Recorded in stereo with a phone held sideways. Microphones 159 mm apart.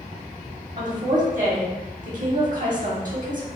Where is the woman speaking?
60° right (ahead or behind), 1.1 m.